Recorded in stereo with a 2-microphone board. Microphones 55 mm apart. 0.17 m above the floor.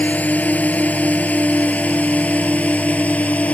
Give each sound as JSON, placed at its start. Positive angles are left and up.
{"t": 0.0, "sound": "a drone", "side_deg": 30}